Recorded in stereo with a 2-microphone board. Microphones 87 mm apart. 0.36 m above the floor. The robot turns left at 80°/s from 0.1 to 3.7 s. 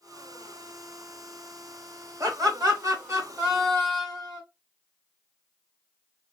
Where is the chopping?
No chopping in this recording.